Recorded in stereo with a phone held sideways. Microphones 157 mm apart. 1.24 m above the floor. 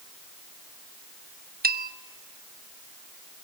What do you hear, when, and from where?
1.6 s a bell: 70° right (ahead or behind), 1.0 m